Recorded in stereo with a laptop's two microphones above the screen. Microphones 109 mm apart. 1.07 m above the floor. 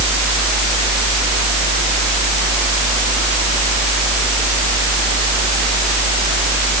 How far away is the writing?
I don't hear writing.